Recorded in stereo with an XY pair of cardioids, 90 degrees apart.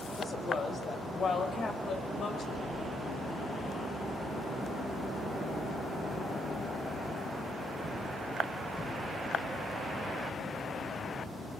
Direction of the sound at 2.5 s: 60° left.